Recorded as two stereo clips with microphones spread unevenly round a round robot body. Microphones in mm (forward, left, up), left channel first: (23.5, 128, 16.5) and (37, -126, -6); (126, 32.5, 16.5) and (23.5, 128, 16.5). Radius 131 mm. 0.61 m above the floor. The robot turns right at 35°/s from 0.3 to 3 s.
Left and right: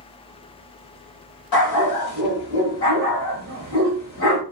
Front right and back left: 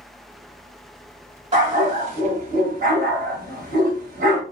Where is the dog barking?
100° left, 1.4 m; by 4.4 s 150° left, 1.4 m.